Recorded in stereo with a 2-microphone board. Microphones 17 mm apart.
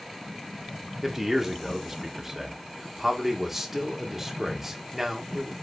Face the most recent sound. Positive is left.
turn(degrees=-15)  # may be behind; listen again after turning